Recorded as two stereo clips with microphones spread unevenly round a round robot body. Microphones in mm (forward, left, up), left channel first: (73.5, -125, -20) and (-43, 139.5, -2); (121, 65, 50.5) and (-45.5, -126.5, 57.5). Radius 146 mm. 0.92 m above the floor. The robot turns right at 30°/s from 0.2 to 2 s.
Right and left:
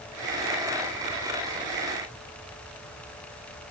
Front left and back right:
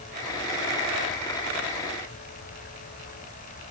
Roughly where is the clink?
No clink in this recording.